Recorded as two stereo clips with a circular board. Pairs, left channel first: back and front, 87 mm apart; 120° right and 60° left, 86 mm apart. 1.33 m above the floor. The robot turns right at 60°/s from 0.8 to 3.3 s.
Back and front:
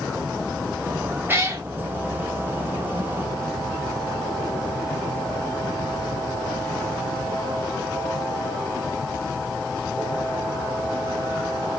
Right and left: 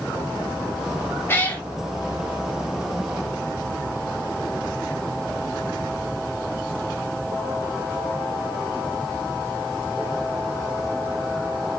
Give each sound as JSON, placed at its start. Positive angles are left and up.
{"t": 1.3, "sound": "a cat meowing", "azimuth_deg": -60, "distance_m": 1.1}